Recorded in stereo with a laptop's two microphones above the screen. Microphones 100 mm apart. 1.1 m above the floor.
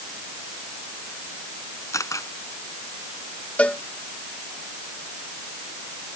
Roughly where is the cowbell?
Centre.